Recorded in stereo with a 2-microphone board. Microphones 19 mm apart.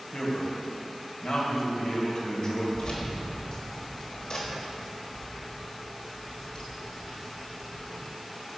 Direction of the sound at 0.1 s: 50° left (ahead or behind).